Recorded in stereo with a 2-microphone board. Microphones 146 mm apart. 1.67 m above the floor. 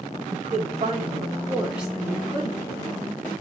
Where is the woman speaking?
55° right (ahead or behind), 1.0 m; by 3.1 s 30° left (ahead or behind), 1.3 m.